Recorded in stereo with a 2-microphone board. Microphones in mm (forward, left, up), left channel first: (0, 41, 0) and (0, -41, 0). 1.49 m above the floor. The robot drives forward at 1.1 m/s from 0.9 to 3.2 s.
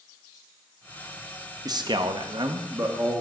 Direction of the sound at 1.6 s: 50° right (ahead or behind).